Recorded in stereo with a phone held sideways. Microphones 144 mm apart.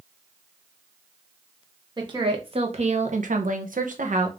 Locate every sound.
2.0 s a woman speaking: 30° right (ahead or behind), 1.2 m; by 4.3 s 55° right (ahead or behind), 0.8 m